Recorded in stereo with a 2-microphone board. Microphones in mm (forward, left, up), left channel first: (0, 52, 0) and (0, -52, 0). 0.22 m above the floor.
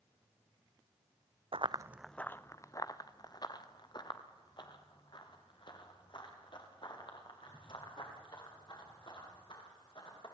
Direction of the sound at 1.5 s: 65° right (ahead or behind).